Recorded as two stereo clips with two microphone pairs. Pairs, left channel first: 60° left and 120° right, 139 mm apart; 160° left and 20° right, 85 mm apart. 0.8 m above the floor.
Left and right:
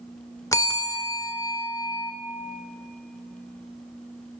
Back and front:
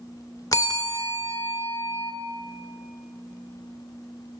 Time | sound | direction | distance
0.5 | a bell | 120° left | 0.7 m